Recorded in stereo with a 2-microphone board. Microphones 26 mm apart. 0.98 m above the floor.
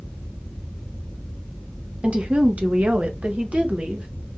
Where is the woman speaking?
45° right (ahead or behind), 0.9 m; by 4.1 s 65° right (ahead or behind), 1.5 m.